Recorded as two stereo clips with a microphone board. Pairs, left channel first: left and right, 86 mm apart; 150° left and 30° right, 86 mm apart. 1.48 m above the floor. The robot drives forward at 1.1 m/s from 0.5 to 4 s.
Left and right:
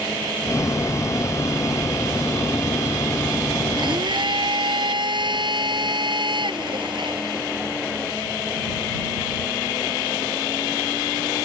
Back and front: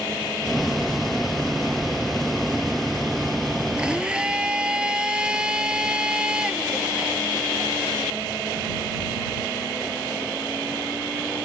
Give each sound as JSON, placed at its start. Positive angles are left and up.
{"t": 3.8, "sound": "a blender", "azimuth_deg": -105}